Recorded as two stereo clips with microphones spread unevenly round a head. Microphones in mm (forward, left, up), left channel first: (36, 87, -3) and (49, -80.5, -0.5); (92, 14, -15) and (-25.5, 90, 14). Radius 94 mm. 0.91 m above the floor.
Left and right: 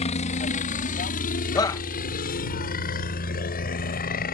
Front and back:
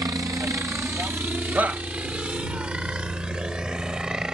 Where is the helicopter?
80° left; by 4.3 s 60° left.